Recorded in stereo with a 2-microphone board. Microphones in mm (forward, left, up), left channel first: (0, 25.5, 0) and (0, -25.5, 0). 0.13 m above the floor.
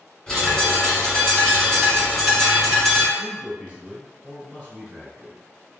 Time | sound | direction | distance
0.3 | a bird | 5° left (ahead or behind) | 1.9 m
3.2 | a man speaking | 20° right (ahead or behind) | 1.9 m